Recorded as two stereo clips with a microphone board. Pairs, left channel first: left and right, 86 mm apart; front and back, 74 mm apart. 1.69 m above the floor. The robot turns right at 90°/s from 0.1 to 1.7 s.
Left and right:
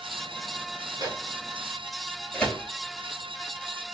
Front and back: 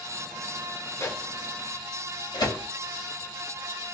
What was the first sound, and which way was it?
A microwave, 50° right.